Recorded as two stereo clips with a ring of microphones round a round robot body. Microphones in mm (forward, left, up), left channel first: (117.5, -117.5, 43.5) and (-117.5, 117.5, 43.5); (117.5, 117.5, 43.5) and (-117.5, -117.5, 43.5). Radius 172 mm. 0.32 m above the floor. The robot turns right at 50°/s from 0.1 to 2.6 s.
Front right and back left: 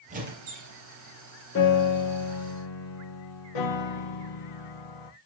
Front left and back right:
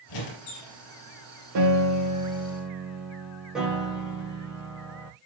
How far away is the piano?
About 4 m.